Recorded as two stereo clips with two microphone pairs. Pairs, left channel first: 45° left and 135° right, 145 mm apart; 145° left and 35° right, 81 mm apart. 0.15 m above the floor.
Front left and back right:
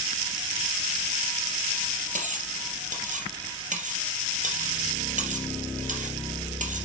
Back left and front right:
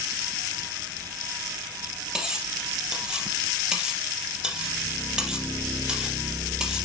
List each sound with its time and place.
2.1 s cutlery clinking: 115° right, 3 m